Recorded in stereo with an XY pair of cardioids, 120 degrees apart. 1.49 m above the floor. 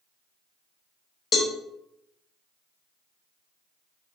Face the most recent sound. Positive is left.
turn(degrees=40)